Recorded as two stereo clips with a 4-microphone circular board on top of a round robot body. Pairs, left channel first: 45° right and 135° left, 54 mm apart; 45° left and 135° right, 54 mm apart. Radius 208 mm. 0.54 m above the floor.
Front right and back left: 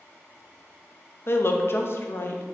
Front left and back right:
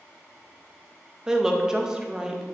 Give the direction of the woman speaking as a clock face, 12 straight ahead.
2 o'clock.